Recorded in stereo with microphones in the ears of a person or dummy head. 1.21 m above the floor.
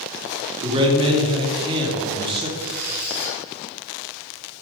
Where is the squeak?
45° left (ahead or behind), 1.9 m.